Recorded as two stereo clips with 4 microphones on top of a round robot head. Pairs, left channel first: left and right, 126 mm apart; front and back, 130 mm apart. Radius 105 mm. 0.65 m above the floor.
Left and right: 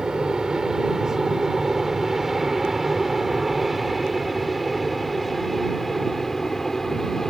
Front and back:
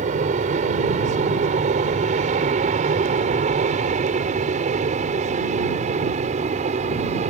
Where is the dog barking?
I don't hear a dog barking.